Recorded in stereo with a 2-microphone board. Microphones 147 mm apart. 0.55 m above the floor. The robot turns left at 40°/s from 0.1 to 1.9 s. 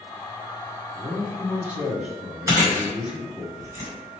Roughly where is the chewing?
Centre.